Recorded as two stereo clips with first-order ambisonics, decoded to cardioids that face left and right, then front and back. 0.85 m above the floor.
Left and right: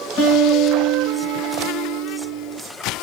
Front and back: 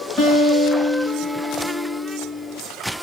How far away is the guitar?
About 2.5 m.